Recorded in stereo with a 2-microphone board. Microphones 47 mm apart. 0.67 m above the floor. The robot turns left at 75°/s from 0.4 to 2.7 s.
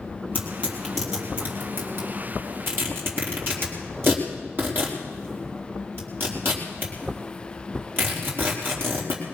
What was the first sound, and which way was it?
Tearing paper, 45° left (ahead or behind).